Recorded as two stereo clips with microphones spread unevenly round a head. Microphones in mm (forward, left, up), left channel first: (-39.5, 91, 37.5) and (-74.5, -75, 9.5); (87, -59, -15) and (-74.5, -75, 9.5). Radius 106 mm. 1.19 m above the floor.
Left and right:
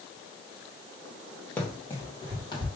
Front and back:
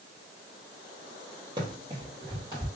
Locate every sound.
1.6 s running footsteps: 145° left, 1.5 m; by 2.7 s 130° left, 2.0 m